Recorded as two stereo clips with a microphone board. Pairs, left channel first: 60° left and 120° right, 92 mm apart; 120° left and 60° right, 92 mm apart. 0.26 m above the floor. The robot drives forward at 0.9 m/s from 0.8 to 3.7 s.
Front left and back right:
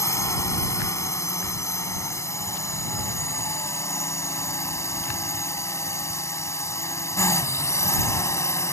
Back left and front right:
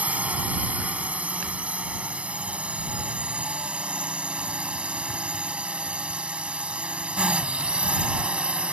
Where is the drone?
10° left; by 8.7 s 15° left.